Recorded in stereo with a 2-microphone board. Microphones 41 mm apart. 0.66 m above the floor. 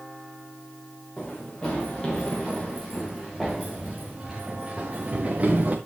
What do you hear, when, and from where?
1.2 s running footsteps: 25° left (ahead or behind), 4.5 m; by 5.8 s 35° right (ahead or behind), 3 m